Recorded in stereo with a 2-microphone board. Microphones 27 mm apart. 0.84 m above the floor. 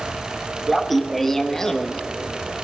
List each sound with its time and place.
0.7 s laughter: centre (ahead or behind), 1.3 m; by 2.0 s 30° left (ahead or behind), 1.0 m